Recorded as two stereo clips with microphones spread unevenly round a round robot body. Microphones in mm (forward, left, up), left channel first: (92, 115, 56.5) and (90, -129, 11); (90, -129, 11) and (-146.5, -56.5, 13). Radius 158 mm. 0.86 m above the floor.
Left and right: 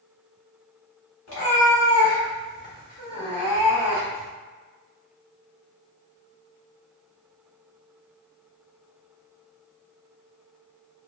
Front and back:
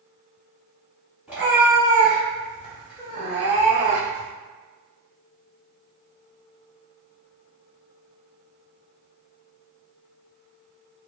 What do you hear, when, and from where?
1.3 s a cat meowing: 80° left, 1.2 m; by 4.3 s 165° right, 0.9 m